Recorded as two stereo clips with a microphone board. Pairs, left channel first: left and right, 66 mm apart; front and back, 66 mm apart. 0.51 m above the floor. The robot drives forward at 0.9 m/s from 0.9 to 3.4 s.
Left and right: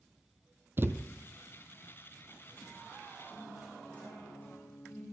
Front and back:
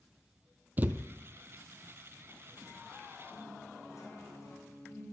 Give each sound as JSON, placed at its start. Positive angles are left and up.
{"t": 0.8, "sound": "a thud", "azimuth_deg": -130, "distance_m": 0.7}
{"t": 3.3, "sound": "a guitar", "azimuth_deg": 25, "distance_m": 6.5}